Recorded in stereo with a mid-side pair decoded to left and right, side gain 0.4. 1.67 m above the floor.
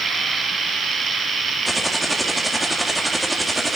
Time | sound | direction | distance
1.6 | typing on a keyboard | 10° right | 3 m